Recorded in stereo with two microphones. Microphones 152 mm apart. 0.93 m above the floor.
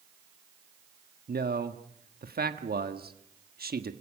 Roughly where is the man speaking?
Right.